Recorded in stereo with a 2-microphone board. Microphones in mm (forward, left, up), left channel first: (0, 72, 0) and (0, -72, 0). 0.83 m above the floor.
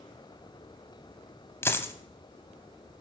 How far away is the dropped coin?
About 1.1 m.